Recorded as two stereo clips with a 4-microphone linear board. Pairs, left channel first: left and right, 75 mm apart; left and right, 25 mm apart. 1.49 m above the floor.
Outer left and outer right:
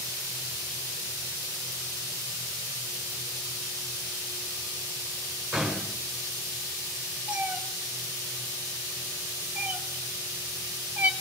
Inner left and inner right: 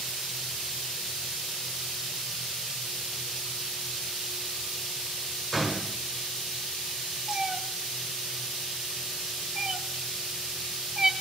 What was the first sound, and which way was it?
A gunshot, centre (ahead or behind).